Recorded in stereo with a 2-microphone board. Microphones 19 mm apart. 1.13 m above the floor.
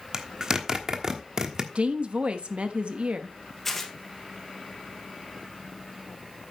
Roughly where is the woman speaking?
Right.